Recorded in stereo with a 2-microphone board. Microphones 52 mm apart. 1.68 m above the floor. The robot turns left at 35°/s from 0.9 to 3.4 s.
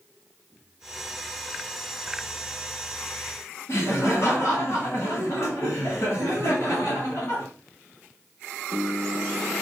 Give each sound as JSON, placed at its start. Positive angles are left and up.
{"t": 3.7, "sound": "laughter", "side_deg": 55, "distance_m": 3.0}